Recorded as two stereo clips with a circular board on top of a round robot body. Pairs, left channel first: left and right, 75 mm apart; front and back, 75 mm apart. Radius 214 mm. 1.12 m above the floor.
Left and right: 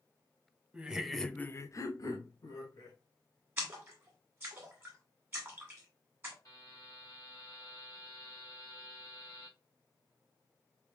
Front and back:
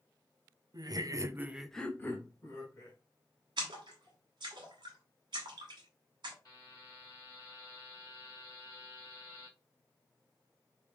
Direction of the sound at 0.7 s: 165° right.